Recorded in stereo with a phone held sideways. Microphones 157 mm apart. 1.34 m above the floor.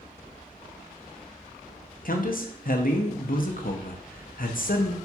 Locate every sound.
2.0 s a man speaking: 65° left (ahead or behind), 0.7 m